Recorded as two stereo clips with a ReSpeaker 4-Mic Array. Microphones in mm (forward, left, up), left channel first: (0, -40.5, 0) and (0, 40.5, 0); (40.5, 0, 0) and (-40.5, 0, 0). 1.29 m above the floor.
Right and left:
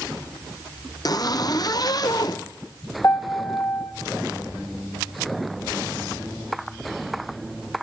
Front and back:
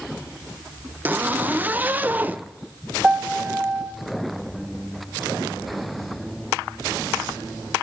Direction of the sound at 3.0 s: 115° right.